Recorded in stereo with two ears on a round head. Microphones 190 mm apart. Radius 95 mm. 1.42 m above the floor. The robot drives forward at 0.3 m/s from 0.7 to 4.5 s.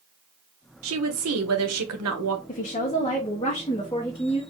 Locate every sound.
0.8 s a woman speaking: 70° right (ahead or behind), 1.1 m; by 2.4 s 85° right, 1.0 m
2.5 s a woman speaking: 35° left (ahead or behind), 0.6 m; by 4.4 s 20° left (ahead or behind), 1.1 m